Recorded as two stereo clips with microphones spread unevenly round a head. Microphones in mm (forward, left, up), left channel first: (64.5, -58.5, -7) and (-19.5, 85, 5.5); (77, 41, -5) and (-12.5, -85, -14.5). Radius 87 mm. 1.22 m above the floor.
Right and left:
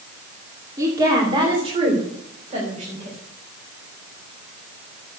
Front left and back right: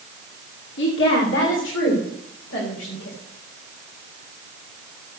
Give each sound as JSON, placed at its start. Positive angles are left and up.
{"t": 0.8, "sound": "a woman speaking", "azimuth_deg": 50, "distance_m": 2.5}